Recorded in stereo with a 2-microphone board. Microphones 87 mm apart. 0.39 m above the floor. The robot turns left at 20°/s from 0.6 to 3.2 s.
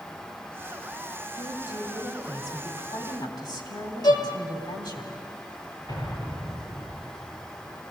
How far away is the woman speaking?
About 3 m.